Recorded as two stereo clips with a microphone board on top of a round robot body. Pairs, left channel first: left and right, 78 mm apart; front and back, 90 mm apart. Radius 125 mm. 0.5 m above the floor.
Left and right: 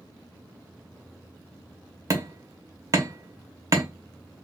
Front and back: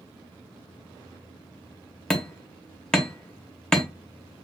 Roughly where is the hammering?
Right.